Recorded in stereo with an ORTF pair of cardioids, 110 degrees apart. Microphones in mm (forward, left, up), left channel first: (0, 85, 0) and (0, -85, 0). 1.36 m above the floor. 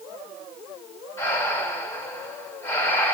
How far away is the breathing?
About 2.5 m.